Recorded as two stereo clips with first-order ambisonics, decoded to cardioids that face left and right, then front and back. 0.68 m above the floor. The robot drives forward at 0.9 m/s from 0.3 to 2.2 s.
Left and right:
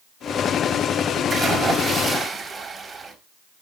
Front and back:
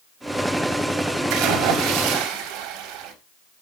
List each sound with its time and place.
1.3 s a splash: 165° right, 4 m